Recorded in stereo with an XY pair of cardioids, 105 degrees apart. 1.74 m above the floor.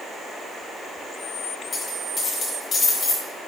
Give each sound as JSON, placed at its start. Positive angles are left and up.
{"t": 1.7, "sound": "a dropped coin", "azimuth_deg": 40, "distance_m": 5.0}